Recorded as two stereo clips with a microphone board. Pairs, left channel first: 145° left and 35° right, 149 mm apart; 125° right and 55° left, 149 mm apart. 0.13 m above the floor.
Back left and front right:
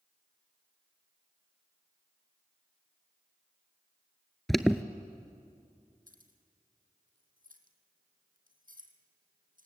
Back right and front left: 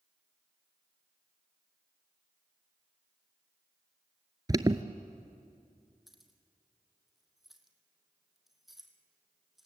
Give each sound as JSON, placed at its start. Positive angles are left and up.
{"t": 4.5, "sound": "an alarm", "azimuth_deg": 60, "distance_m": 0.8}
{"t": 6.1, "sound": "keys jangling", "azimuth_deg": -35, "distance_m": 2.5}